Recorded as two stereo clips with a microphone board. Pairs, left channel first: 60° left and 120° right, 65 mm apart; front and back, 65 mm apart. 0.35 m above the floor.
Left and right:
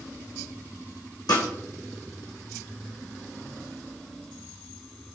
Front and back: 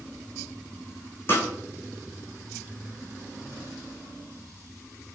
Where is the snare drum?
55° left, 3 m.